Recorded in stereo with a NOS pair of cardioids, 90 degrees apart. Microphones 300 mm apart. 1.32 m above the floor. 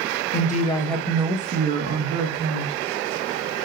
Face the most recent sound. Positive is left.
turn(degrees=-65)